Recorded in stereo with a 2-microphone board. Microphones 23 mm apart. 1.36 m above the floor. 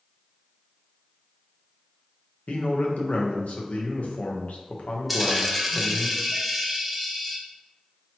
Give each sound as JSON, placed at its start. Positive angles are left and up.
{"t": 2.5, "sound": "a man speaking", "side_deg": 80, "distance_m": 0.9}
{"t": 5.1, "sound": "a dropped coin", "side_deg": -5, "distance_m": 0.7}